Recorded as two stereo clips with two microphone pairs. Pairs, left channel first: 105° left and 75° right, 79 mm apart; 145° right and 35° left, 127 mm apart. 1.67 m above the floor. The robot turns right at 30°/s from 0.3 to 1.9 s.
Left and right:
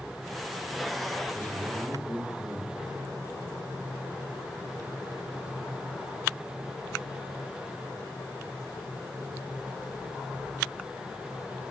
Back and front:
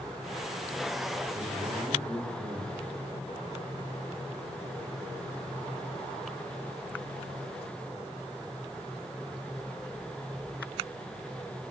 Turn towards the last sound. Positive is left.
turn(degrees=55)